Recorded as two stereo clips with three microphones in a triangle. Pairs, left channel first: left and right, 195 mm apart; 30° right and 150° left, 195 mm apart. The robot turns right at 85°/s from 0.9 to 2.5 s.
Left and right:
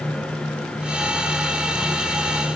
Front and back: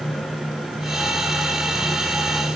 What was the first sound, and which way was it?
Only background noise.